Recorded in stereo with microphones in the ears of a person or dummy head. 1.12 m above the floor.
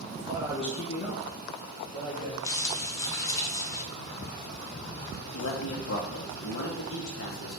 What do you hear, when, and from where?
0.1 s a man speaking: 35° right (ahead or behind), 0.7 m; by 2.3 s 60° left (ahead or behind), 1.6 m
2.4 s crumpling: 15° left (ahead or behind), 0.6 m
5.3 s a man speaking: 70° left (ahead or behind), 0.8 m